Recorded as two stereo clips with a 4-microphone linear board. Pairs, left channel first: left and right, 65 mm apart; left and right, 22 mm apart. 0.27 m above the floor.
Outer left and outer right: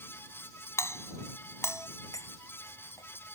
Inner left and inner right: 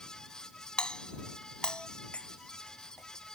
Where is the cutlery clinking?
60° left (ahead or behind).